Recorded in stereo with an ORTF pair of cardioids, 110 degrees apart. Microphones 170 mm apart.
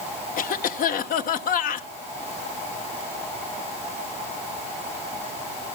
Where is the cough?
60° left, 1.4 m.